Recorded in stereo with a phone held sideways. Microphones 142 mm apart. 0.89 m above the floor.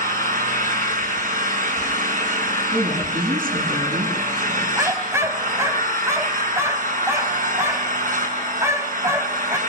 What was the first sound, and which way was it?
An engine running, 70° right (ahead or behind).